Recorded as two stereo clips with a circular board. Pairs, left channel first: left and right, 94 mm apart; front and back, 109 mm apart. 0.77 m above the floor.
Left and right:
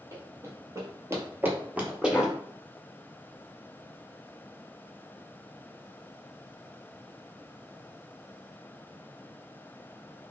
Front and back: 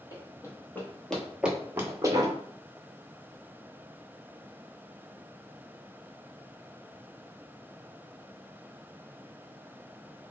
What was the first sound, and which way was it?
Running footsteps, 45° right.